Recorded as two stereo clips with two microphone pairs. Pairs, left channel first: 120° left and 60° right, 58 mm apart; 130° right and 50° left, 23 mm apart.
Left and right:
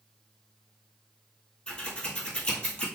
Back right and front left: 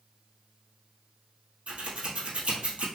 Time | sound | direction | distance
1.7 | scissors | 55° left | 1.5 m